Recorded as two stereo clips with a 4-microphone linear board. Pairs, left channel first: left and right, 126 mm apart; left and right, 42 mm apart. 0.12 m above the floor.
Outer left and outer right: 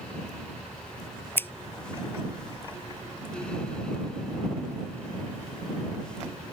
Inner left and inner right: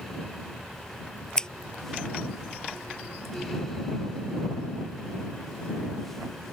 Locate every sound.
1.4 s scissors: 15° left (ahead or behind)